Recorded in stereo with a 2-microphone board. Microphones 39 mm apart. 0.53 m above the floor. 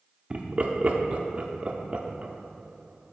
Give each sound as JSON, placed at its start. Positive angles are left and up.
{"t": 0.3, "sound": "laughter", "side_deg": -25, "distance_m": 0.7}